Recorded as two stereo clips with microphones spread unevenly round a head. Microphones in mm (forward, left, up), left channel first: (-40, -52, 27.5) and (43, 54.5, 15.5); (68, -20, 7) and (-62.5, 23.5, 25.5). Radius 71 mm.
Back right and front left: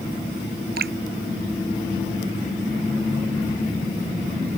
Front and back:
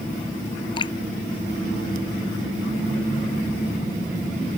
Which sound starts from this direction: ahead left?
Dripping, at 0.8 s.